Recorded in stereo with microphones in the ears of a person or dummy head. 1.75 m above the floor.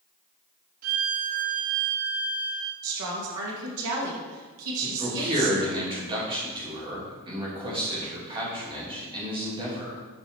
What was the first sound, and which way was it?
A violin, 45° right (ahead or behind).